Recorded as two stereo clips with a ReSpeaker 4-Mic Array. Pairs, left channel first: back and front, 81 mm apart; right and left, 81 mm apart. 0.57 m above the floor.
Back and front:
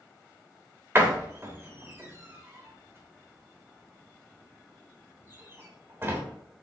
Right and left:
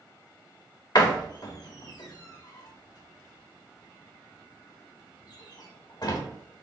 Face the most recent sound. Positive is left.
turn(degrees=-60)